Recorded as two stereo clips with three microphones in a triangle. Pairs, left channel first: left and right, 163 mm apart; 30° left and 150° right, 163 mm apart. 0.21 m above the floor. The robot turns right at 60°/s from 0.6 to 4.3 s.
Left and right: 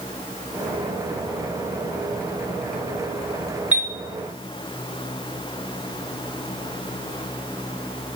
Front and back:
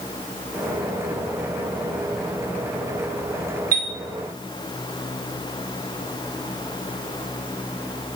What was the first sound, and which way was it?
A chime, 170° right.